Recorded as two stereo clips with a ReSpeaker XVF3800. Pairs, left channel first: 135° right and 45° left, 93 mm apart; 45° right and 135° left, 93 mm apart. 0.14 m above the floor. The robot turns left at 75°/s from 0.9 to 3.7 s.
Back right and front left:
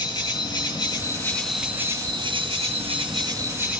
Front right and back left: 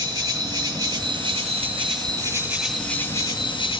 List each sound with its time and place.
0.0 s an insect: 175° right, 2 m; by 3.8 s 25° right, 2 m